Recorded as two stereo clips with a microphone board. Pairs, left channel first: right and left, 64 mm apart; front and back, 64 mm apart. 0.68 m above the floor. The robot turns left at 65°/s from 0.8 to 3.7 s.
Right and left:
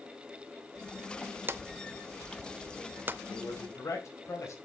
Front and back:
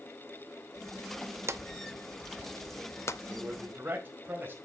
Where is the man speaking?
100° right, 4 m; by 4.5 s 125° right, 4 m.